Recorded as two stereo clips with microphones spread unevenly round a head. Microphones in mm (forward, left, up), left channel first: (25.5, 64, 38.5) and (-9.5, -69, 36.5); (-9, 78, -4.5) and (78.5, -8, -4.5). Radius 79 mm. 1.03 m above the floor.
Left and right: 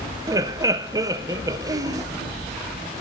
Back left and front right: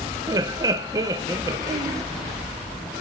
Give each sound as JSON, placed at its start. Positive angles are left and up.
{"t": 0.3, "sound": "laughter", "azimuth_deg": -75, "distance_m": 0.6}